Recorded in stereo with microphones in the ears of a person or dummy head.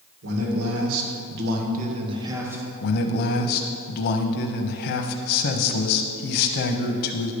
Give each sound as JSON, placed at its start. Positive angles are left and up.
{"t": 0.2, "sound": "a man speaking", "side_deg": -85, "distance_m": 2.0}
{"t": 2.8, "sound": "a man speaking", "side_deg": 50, "distance_m": 0.9}